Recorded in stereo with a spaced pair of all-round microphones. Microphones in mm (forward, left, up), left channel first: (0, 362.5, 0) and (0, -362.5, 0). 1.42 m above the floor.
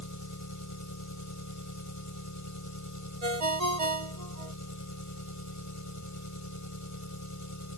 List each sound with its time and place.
0.0 s an engine running: 25° left (ahead or behind)
3.2 s a ringtone: 55° right (ahead or behind)